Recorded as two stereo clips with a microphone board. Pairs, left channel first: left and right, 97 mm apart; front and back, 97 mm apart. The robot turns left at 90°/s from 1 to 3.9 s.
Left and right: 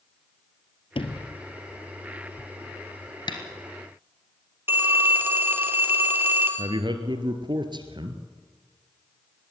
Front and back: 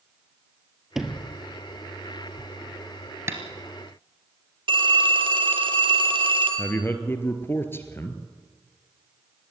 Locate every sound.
0.9 s a sliding door: 95° left, 1.4 m; by 1.4 s 60° left, 1.4 m
3.3 s tapping: 120° left, 2 m; by 3.4 s 110° left, 2 m
4.7 s a phone ringing: 155° right, 2 m
6.6 s a man speaking: 65° right, 2 m